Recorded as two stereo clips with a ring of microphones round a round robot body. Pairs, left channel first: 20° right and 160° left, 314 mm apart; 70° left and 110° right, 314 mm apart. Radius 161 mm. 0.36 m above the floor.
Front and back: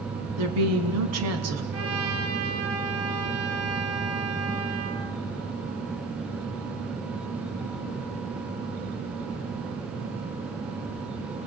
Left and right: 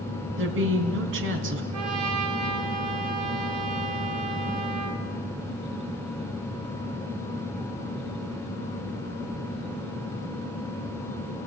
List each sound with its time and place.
0.4 s a woman speaking: 165° right, 3.5 m
1.7 s a trumpet: 155° right, 4 m